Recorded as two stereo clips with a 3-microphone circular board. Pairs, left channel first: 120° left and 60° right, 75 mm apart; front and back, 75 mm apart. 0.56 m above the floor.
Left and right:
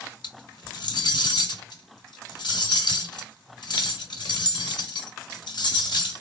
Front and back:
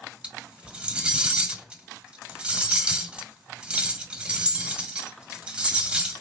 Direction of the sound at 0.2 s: 105° left.